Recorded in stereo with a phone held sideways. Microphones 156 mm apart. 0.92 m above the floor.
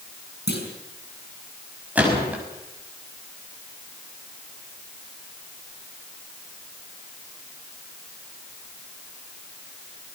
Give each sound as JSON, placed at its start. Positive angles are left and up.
{"t": 0.5, "sound": "a clunk", "side_deg": 90, "distance_m": 6.5}
{"t": 1.9, "sound": "a gunshot", "side_deg": -10, "distance_m": 6.0}